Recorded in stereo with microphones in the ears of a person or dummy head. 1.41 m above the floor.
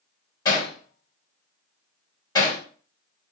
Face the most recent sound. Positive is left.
turn(degrees=25)  # may be behind; listen again after turning